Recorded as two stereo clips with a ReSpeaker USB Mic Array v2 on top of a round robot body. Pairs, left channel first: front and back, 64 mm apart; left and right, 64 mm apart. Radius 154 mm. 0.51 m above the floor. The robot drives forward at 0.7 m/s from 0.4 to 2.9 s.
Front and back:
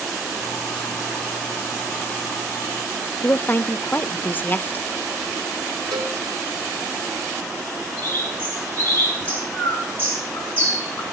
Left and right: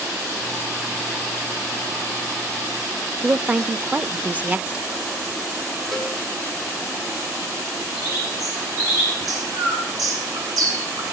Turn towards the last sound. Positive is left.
turn(degrees=-65)